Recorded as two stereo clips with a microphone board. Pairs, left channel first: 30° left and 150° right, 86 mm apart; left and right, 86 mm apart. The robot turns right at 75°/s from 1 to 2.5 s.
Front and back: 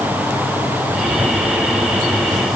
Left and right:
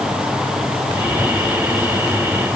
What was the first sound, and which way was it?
Only background noise.